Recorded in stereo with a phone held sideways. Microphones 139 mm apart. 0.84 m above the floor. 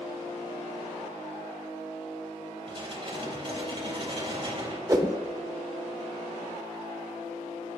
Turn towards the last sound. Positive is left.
turn(degrees=-25)  # may be behind; listen again after turning